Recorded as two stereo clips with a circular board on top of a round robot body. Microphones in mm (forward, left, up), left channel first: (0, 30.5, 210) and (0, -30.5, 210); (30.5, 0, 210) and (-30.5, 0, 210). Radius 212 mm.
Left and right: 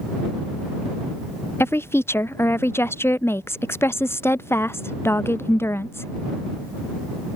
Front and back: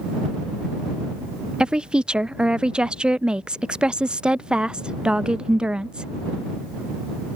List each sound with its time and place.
1.6 s a woman speaking: 110° left